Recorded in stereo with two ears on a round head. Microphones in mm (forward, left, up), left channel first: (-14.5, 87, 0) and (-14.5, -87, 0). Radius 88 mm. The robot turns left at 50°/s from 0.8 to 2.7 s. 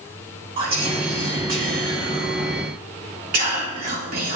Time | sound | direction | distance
0.6 | whispering | 30° right | 3 m